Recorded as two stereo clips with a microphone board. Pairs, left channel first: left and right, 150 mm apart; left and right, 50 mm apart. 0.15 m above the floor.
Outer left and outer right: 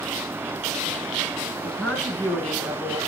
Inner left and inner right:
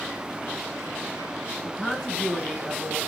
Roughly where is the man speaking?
Centre.